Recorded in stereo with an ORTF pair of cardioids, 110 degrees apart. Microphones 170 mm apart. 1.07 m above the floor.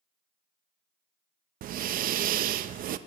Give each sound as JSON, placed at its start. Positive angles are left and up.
{"t": 1.6, "sound": "breathing", "azimuth_deg": -55, "distance_m": 0.6}